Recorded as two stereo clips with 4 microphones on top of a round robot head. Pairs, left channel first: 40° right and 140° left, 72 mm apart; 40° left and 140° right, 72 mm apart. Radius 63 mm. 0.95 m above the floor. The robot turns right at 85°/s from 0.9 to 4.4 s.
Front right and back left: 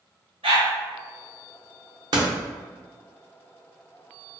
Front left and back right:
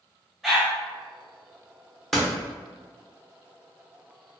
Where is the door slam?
125° left, 0.7 m; by 2.3 s 140° left, 0.7 m.